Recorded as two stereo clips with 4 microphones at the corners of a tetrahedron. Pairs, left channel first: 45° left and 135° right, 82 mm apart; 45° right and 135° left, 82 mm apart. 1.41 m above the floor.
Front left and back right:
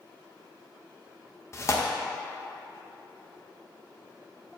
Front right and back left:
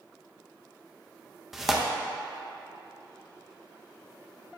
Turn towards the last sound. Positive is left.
turn(degrees=50)